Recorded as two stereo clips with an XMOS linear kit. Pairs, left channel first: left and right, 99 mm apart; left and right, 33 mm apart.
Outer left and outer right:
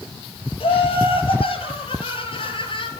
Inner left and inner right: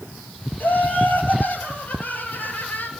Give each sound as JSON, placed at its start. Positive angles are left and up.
{"t": 0.6, "sound": "laughter", "side_deg": 65, "distance_m": 6.5}